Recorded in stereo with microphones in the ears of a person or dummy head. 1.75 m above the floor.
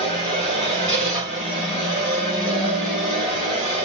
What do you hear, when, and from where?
0.0 s a machine running: 5° left (ahead or behind), 2 m